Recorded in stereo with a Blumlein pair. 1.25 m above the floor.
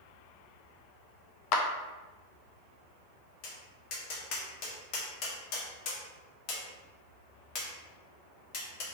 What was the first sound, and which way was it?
A clap, 40° left.